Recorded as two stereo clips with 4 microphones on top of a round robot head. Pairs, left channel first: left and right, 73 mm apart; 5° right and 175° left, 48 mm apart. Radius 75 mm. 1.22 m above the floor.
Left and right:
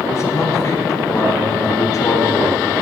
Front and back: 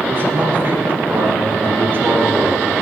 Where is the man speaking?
135° left, 4 m.